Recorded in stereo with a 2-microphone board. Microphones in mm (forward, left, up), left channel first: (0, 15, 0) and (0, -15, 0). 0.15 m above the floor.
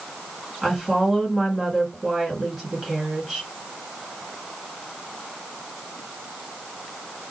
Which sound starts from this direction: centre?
A woman speaking, at 0.6 s.